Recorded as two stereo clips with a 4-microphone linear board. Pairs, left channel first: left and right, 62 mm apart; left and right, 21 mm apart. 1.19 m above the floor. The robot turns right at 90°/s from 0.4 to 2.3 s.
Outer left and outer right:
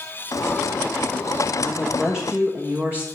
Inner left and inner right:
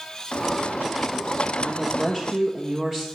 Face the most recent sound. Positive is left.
turn(degrees=-155)